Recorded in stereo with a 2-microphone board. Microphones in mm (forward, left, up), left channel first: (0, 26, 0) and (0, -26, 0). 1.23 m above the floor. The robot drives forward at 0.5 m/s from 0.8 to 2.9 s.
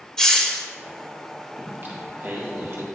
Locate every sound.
0.2 s a hiss: 15° left (ahead or behind), 1.0 m
1.6 s singing: 40° right (ahead or behind), 2.5 m; by 2.8 s 55° right (ahead or behind), 1.8 m